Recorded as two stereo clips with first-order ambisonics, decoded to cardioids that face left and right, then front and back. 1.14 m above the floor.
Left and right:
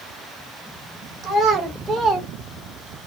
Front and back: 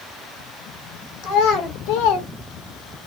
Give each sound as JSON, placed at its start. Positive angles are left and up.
{"t": 1.2, "sound": "a child speaking", "azimuth_deg": -20, "distance_m": 2.5}